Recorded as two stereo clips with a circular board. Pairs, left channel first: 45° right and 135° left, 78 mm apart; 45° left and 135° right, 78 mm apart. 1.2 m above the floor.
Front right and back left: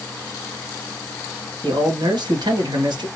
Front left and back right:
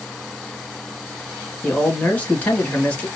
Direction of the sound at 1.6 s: 115° left.